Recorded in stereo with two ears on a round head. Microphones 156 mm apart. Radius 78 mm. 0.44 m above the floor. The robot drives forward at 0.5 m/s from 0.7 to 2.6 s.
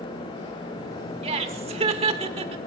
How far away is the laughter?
About 1.1 m.